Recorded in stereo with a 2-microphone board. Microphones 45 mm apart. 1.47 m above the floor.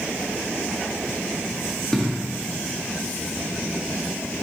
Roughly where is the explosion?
Centre.